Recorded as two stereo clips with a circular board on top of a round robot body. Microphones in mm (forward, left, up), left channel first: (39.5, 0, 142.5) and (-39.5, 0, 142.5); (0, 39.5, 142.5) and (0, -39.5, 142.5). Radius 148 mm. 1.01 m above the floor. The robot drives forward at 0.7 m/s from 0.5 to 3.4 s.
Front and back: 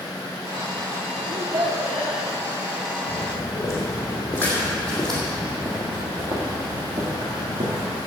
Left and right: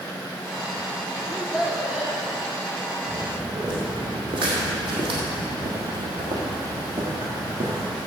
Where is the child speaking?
170° right, 1.5 m; by 2.2 s 175° right, 2 m.